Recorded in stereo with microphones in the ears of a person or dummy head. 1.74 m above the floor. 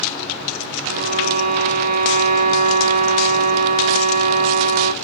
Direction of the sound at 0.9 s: 45° right (ahead or behind).